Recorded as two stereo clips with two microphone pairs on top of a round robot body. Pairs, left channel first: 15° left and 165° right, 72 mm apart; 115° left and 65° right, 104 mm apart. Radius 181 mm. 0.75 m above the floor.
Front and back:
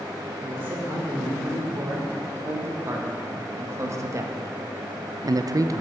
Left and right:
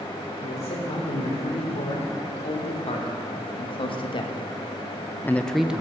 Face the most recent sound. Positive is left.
turn(degrees=-135)